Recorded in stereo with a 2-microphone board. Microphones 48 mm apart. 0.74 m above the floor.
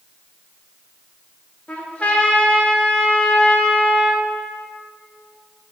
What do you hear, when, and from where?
1.7 s a trumpet: 25° left (ahead or behind), 0.9 m